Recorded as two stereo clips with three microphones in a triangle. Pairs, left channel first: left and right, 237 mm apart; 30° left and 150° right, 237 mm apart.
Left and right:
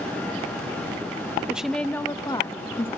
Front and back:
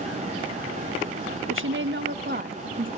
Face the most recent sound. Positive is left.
turn(degrees=160)